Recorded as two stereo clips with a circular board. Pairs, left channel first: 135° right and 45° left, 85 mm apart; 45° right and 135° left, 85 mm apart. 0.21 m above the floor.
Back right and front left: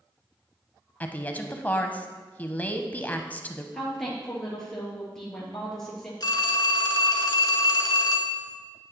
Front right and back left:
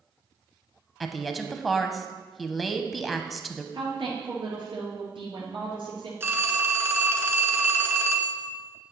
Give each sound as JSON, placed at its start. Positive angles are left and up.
{"t": 1.0, "sound": "a woman speaking", "azimuth_deg": -135, "distance_m": 1.0}
{"t": 3.7, "sound": "a woman speaking", "azimuth_deg": 140, "distance_m": 3.5}
{"t": 6.2, "sound": "a phone ringing", "azimuth_deg": -165, "distance_m": 1.4}